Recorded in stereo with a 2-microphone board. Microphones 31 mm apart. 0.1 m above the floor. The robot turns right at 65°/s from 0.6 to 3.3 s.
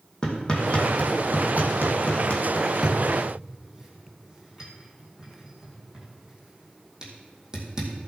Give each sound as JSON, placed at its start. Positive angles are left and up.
{"t": 0.2, "sound": "hammering", "side_deg": 25, "distance_m": 2.5}